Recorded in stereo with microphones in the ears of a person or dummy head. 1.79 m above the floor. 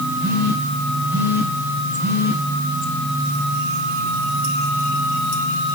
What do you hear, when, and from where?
0.2 s a phone buzzing: 10° right (ahead or behind), 5.5 m